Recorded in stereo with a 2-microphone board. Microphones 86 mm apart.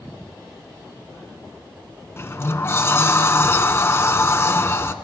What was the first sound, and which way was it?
A sliding door, 30° left (ahead or behind).